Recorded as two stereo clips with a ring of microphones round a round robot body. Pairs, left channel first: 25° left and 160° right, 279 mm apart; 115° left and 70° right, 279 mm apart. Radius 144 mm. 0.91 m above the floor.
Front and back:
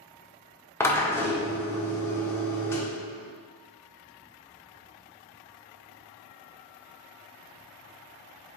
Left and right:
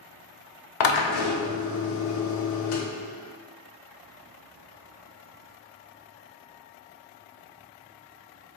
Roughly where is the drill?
Left.